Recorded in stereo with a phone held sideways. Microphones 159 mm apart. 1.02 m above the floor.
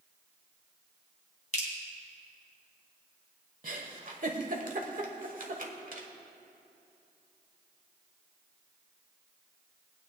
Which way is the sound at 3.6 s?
60° right (ahead or behind).